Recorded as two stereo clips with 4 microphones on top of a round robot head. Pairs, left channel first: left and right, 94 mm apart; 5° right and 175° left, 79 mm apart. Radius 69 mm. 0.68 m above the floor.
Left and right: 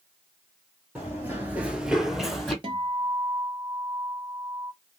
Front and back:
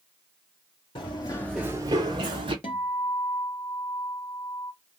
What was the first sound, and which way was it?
Running footsteps, 10° right.